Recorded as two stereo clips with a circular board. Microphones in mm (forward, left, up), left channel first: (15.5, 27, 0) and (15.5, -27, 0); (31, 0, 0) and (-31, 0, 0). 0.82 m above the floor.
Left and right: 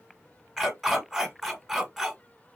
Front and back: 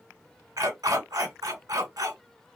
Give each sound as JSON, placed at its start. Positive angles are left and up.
{"t": 0.6, "sound": "a dog barking", "azimuth_deg": 180, "distance_m": 1.5}